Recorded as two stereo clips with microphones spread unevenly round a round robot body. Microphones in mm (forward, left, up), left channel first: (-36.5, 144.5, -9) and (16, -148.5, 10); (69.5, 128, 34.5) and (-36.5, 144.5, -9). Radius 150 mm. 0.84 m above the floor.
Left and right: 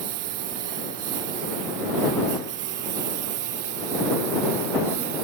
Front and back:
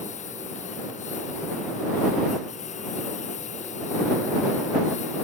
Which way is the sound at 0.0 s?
55° right.